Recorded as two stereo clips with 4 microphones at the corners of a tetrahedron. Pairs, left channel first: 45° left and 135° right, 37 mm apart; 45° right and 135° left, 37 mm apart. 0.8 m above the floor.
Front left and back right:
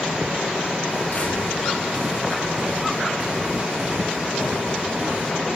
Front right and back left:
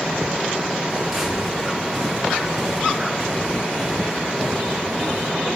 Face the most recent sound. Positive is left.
turn(degrees=-135)